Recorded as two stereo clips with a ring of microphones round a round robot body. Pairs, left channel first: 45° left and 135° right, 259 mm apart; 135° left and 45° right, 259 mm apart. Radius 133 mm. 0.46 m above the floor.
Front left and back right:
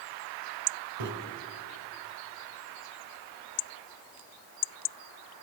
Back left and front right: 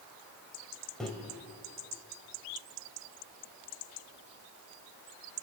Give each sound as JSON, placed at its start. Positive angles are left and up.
{"t": 1.0, "sound": "a microwave", "azimuth_deg": -135, "distance_m": 2.5}